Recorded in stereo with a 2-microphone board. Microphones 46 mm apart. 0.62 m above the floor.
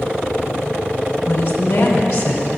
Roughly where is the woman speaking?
Left.